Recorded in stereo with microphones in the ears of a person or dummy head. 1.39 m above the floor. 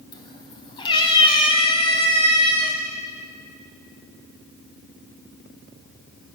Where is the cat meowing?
20° left (ahead or behind), 2 m; by 2.8 s 30° left (ahead or behind), 4.5 m.